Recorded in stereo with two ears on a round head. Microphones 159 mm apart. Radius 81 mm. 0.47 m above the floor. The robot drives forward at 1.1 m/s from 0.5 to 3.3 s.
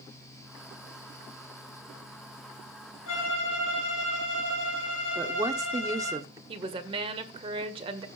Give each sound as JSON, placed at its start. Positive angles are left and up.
{"t": 3.1, "sound": "a violin", "side_deg": 85, "distance_m": 3.5}
{"t": 5.2, "sound": "a woman speaking", "side_deg": -20, "distance_m": 1.1}
{"t": 6.5, "sound": "a woman speaking", "side_deg": -30, "distance_m": 2.0}